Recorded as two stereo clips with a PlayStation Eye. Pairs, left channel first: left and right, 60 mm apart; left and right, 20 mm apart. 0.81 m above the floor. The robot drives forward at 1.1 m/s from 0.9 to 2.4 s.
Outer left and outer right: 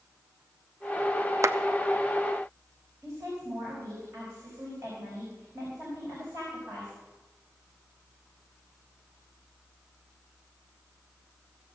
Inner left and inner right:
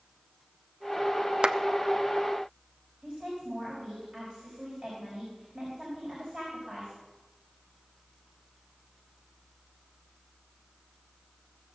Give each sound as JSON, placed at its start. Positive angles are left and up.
{"t": 1.4, "sound": "a clap", "side_deg": -55, "distance_m": 0.6}
{"t": 3.0, "sound": "a woman speaking", "side_deg": -40, "distance_m": 5.0}